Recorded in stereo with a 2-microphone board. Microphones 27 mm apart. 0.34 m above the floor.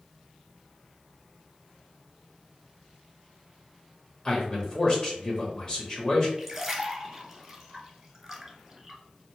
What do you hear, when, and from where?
4.2 s a man speaking: 30° left (ahead or behind), 1.0 m
6.4 s a splash: 5° right (ahead or behind), 1.0 m